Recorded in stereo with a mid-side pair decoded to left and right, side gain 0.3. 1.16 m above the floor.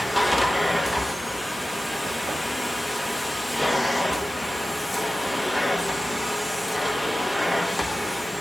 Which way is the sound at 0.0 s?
15° left.